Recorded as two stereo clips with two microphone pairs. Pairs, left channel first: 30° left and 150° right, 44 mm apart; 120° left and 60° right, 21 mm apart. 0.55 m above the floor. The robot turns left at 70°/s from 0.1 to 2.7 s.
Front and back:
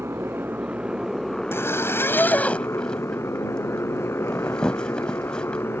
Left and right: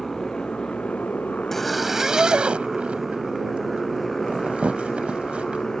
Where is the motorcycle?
165° right; by 5.8 s 60° left.